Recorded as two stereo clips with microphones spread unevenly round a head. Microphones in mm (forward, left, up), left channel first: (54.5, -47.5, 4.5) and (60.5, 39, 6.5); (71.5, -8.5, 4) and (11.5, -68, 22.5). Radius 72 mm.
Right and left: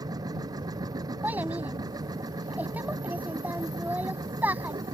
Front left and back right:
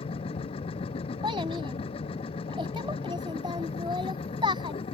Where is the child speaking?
165° left.